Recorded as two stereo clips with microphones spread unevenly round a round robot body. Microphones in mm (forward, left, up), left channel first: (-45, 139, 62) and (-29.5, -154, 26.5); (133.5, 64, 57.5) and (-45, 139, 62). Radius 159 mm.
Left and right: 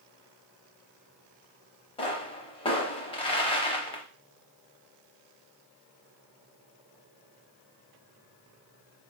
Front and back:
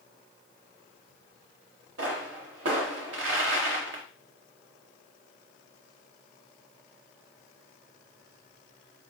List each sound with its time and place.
2.0 s a pop: 160° left, 0.6 m